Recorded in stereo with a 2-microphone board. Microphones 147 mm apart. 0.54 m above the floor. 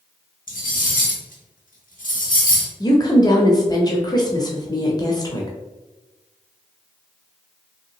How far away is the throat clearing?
I don't hear throat clearing.